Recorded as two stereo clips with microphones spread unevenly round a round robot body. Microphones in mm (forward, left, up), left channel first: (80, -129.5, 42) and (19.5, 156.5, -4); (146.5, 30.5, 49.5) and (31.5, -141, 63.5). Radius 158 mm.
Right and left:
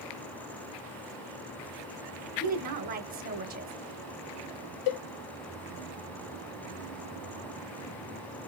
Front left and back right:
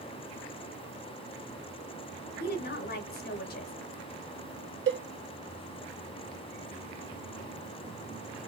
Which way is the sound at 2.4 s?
60° left.